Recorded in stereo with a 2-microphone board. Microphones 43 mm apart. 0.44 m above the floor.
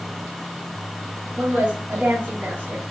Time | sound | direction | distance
1.4 | a woman speaking | 60° right (ahead or behind) | 2.5 m